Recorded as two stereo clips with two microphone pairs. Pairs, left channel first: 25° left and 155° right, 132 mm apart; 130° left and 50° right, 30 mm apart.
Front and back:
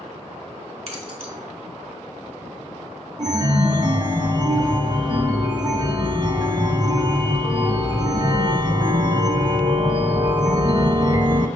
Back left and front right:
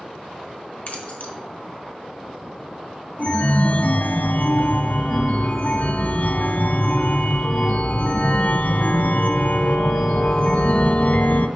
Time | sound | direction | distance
0.9 | keys jangling | 175° left | 2 m
3.2 | a chime | 150° left | 0.8 m